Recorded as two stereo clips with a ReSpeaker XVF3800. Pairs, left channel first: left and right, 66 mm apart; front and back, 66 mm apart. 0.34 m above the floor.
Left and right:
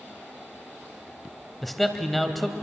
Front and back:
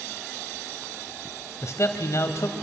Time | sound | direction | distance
1.6 | a man speaking | 5° left | 1.7 m